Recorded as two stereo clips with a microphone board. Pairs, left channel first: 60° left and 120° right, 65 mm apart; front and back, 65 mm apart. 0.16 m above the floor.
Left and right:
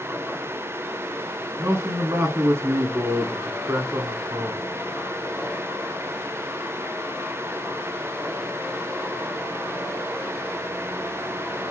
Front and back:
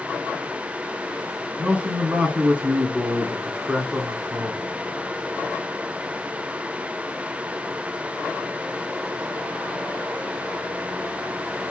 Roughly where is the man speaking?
Behind right.